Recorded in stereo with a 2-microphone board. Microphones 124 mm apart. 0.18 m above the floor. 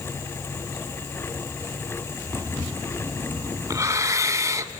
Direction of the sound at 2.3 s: 25° right (ahead or behind).